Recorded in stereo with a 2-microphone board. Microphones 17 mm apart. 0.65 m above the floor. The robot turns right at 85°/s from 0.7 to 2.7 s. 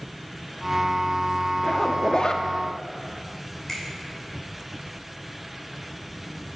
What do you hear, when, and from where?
1.6 s a zipper: 55° left, 0.6 m; by 2.5 s 125° left, 0.6 m
3.7 s a finger snap: 20° left (ahead or behind), 2.5 m